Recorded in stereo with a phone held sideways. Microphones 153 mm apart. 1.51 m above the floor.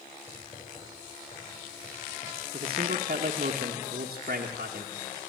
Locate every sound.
0.3 s writing: 30° left (ahead or behind), 8.5 m
2.5 s a man speaking: 75° right (ahead or behind), 1.5 m